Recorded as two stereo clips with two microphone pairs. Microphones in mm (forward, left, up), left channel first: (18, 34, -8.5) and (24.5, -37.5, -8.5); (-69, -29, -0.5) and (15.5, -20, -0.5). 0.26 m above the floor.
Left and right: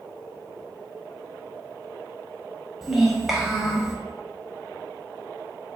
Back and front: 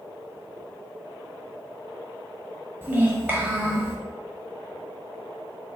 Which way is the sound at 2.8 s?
10° right.